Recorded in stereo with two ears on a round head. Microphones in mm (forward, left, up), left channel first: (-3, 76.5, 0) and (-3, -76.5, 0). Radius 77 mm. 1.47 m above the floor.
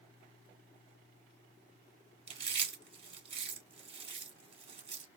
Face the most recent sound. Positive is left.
turn(degrees=-40)  # may be behind; listen again after turning